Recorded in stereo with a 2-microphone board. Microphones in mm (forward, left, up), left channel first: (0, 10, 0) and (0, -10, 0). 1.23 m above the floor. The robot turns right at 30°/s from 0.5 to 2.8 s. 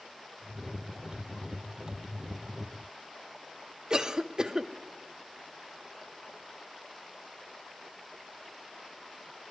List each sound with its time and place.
3.9 s a cough: 35° right (ahead or behind), 0.8 m